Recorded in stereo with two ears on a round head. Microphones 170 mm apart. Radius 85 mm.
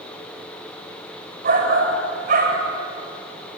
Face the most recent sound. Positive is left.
turn(degrees=-45)  # may be behind; listen again after turning